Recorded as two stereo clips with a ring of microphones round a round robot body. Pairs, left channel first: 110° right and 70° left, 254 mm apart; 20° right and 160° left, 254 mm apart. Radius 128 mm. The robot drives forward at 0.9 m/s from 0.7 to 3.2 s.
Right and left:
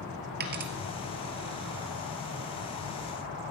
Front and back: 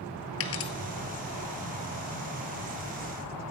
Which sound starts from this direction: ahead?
A dropped coin, at 0.4 s.